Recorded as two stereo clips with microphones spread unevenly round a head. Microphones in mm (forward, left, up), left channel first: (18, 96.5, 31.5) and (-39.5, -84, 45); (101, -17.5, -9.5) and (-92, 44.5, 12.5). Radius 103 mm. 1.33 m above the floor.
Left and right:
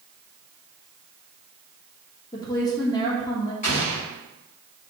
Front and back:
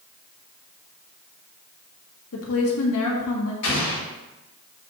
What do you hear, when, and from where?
2.3 s a woman speaking: straight ahead, 1.6 m
3.6 s an explosion: 15° left, 2.5 m